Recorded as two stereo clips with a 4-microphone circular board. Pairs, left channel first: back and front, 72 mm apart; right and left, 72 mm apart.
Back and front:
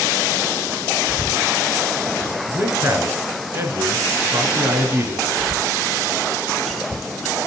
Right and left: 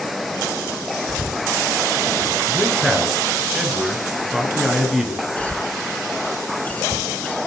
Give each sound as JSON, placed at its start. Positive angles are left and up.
{"t": 1.1, "sound": "a cough", "azimuth_deg": 60, "distance_m": 7.0}
{"t": 2.5, "sound": "a man speaking", "azimuth_deg": 5, "distance_m": 1.7}
{"t": 5.4, "sound": "a cough", "azimuth_deg": -90, "distance_m": 1.1}